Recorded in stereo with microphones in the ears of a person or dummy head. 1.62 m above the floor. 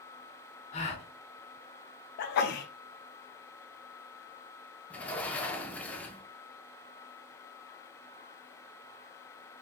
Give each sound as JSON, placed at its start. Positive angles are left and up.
{"t": 0.7, "sound": "a gasp", "side_deg": 35, "distance_m": 0.9}
{"t": 2.2, "sound": "a sneeze", "side_deg": 50, "distance_m": 0.6}
{"t": 4.9, "sound": "a sliding door", "side_deg": 10, "distance_m": 0.6}